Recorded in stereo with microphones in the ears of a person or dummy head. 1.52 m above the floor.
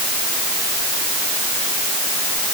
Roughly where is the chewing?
No chewing in this recording.